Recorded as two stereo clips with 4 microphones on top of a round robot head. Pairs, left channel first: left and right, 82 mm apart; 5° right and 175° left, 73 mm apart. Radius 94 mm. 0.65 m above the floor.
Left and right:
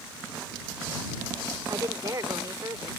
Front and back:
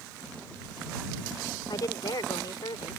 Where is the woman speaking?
40° right.